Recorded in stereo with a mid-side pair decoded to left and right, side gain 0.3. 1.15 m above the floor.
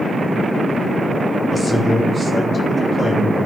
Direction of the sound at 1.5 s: 55° left.